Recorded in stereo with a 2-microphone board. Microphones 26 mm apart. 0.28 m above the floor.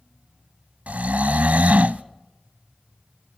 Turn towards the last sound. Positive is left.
turn(degrees=-70)  # may be behind; listen again after turning